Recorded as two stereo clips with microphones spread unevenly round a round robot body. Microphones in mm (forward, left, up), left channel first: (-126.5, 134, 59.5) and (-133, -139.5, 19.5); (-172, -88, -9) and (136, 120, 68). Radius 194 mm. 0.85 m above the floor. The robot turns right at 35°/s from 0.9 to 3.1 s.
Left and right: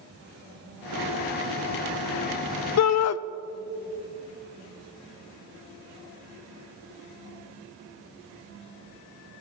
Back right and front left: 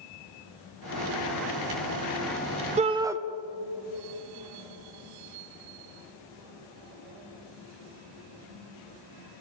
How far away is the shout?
About 0.6 m.